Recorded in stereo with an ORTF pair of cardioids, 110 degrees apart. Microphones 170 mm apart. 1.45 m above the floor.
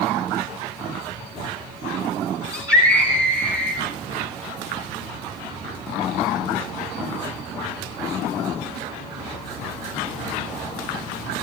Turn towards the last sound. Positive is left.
turn(degrees=-10)